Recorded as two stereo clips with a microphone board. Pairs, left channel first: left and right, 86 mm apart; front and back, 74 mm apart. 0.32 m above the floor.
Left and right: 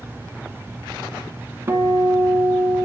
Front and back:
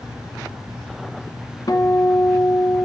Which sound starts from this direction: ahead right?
A guitar, at 1.7 s.